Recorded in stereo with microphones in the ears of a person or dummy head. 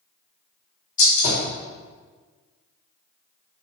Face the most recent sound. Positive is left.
turn(degrees=40)  # may be behind; listen again after turning